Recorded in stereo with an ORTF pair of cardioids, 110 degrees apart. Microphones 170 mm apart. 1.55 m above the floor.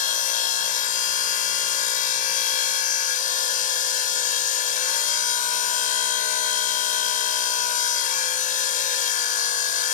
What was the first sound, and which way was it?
A machine running, 55° left.